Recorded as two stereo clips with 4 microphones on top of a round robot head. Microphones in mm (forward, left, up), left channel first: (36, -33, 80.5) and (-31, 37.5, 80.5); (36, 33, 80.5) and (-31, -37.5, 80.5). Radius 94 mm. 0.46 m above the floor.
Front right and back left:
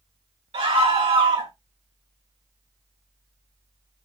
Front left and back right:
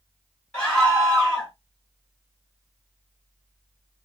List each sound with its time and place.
0.5 s a scream: 125° left, 3.5 m